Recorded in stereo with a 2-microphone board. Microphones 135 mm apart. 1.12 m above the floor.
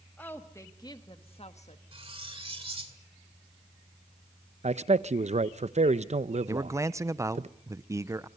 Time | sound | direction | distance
0.2 | a woman speaking | 10° left (ahead or behind) | 1.6 m
1.9 | cutlery clinking | 45° right (ahead or behind) | 2 m
4.6 | a man speaking | 55° right (ahead or behind) | 0.7 m
6.5 | a man speaking | 20° right (ahead or behind) | 0.6 m